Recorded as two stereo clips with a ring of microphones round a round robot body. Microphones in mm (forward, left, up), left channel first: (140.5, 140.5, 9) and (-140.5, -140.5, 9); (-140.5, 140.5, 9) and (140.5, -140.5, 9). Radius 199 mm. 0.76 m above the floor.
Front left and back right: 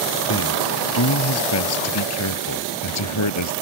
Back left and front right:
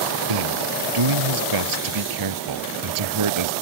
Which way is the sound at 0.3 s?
10° right.